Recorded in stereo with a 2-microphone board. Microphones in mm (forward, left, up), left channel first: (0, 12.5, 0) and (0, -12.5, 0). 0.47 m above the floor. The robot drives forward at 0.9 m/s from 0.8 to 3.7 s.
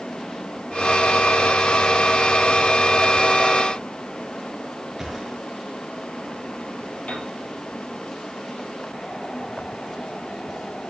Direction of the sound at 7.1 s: 70° left (ahead or behind).